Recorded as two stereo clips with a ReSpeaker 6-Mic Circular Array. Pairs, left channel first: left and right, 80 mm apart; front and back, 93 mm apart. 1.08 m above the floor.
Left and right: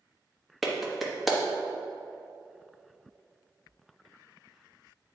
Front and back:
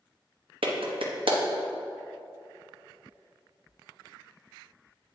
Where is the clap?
Straight behind, 1.1 m.